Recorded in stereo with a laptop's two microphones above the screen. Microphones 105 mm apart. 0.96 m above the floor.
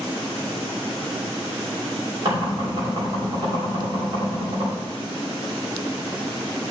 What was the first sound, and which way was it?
Knocking, 55° right (ahead or behind).